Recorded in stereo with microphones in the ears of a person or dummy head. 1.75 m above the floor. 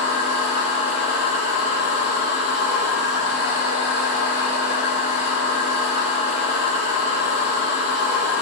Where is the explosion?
I don't hear an explosion.